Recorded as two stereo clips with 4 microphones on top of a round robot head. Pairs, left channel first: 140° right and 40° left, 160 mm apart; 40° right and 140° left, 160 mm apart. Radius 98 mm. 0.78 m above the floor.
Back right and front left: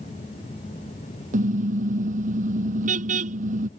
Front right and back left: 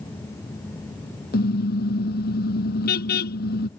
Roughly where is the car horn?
Ahead.